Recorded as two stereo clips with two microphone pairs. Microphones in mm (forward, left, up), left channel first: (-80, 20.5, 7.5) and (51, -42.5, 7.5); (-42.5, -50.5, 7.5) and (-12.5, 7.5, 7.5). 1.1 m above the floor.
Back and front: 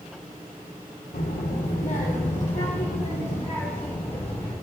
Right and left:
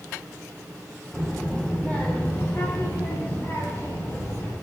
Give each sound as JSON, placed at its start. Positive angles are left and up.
{"t": 1.1, "sound": "a child speaking", "azimuth_deg": 165, "distance_m": 1.9}